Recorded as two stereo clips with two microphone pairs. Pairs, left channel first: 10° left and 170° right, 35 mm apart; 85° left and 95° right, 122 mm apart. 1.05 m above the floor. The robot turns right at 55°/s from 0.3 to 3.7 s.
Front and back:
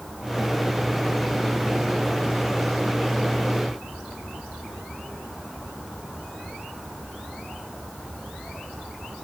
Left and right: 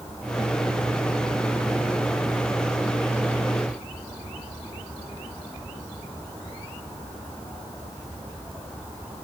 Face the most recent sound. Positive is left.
No sound to turn to.